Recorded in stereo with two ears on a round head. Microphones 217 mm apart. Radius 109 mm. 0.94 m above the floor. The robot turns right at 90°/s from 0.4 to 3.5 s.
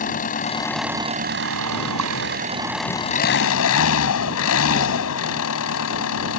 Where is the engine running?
145° left; by 6.4 s 65° left.